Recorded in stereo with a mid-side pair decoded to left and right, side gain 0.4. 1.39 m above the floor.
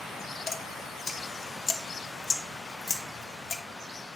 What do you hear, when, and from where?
0.5 s dripping: 45° left, 1.2 m